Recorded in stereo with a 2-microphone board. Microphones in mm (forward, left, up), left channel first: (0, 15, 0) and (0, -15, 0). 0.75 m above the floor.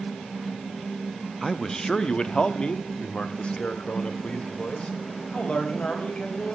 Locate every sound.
1.4 s a man speaking: 5° left (ahead or behind), 0.8 m; by 6.5 s 45° left (ahead or behind), 4.5 m